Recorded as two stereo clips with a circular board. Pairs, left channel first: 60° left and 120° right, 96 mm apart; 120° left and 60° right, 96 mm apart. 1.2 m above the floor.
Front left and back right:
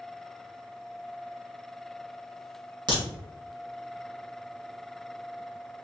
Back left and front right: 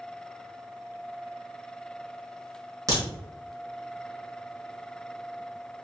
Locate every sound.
2.9 s a crack: 105° right, 1.5 m